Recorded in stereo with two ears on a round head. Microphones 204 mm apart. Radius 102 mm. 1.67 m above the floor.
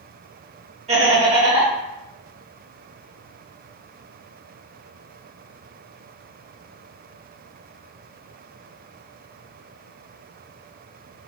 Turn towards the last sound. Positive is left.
turn(degrees=-30)  # may be behind; listen again after turning